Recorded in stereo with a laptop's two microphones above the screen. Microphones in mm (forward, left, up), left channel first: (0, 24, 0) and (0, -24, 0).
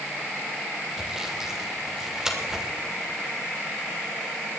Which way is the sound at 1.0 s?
10° right (ahead or behind).